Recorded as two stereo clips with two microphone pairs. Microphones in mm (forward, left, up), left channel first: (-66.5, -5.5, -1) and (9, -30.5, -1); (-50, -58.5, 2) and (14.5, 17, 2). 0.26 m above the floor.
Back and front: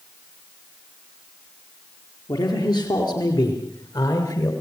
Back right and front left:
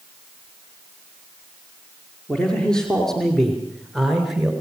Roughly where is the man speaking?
Behind left.